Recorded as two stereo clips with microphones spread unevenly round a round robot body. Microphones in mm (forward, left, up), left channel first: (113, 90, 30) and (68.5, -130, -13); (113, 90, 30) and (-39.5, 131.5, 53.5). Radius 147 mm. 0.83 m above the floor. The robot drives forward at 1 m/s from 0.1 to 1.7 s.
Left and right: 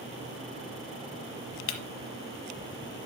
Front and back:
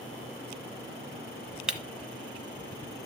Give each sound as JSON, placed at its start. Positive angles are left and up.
{"t": 1.7, "sound": "breaking glass", "azimuth_deg": 85, "distance_m": 1.2}